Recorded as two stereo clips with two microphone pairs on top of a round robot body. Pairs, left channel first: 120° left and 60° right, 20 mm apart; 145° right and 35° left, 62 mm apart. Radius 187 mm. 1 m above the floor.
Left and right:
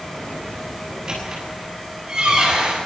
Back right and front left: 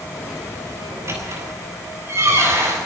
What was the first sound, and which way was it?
A squeak, 10° right.